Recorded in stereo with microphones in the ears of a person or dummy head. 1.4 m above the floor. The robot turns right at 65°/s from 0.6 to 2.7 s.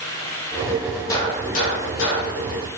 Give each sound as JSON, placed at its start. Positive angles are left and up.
{"t": 1.1, "sound": "a gunshot", "azimuth_deg": 15, "distance_m": 2.0}